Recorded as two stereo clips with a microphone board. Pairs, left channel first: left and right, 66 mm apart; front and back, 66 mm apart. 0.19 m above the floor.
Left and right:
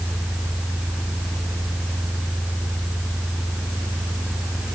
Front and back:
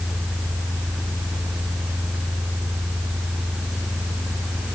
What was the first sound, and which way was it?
Only background noise.